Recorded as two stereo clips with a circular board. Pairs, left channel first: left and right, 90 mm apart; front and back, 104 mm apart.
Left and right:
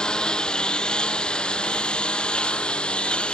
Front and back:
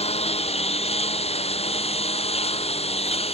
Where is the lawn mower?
10° left.